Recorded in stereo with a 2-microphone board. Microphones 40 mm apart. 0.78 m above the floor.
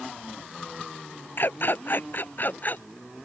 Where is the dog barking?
55° left (ahead or behind); by 2.8 s 45° left (ahead or behind).